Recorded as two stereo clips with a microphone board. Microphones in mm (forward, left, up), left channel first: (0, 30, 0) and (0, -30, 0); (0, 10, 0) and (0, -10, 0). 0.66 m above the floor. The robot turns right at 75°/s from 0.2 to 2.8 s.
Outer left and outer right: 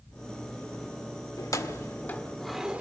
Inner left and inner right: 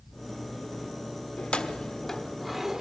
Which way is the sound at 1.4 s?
70° left (ahead or behind).